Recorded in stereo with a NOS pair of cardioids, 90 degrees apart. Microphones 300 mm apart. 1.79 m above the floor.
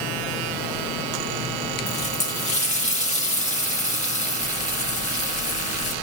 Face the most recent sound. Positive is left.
turn(degrees=25)